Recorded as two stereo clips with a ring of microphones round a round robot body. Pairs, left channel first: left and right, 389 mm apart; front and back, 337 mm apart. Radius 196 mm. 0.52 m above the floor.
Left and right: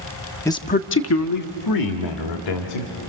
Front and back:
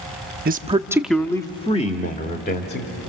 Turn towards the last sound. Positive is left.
turn(degrees=60)